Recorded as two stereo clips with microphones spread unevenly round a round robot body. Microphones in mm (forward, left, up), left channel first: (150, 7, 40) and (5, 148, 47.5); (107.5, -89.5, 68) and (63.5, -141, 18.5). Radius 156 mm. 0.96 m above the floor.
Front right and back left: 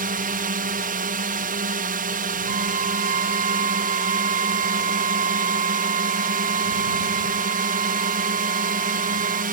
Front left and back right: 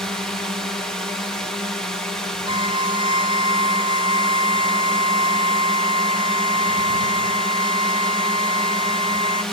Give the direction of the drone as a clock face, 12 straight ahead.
6 o'clock.